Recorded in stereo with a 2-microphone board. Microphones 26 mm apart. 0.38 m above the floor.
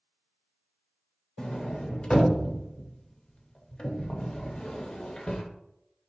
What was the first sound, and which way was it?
A sliding door, 30° left (ahead or behind).